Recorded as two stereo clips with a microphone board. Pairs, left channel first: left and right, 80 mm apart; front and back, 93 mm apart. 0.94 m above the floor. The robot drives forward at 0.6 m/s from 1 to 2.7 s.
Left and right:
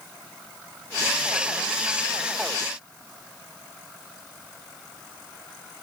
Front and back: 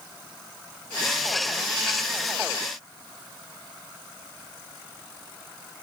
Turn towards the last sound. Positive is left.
No sound to turn to.